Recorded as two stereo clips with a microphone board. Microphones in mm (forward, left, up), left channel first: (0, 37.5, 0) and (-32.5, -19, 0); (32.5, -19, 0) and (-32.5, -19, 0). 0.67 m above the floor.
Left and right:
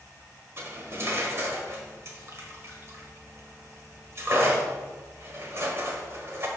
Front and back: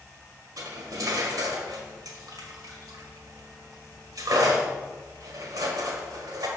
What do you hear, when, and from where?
0.6 s cutlery clinking: 170° right, 1.5 m